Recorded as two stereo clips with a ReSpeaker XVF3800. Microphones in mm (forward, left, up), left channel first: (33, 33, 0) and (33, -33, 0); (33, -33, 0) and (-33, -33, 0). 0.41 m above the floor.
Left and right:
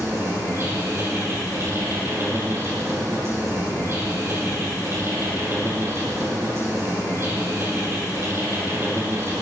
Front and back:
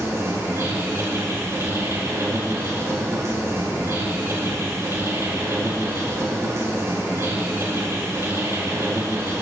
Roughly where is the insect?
Behind right.